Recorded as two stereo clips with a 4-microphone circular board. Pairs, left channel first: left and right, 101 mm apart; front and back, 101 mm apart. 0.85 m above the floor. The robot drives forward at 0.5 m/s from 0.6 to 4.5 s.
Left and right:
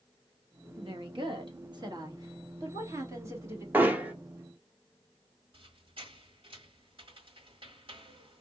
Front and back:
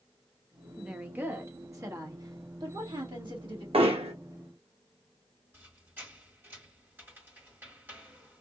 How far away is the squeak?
About 1.4 m.